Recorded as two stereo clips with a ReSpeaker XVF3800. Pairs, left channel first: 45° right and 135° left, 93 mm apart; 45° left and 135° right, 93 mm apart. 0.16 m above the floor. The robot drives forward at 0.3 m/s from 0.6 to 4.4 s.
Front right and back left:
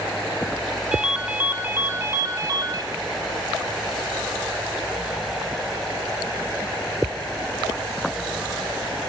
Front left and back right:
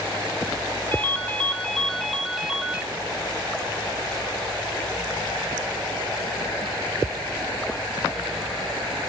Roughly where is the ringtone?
Left.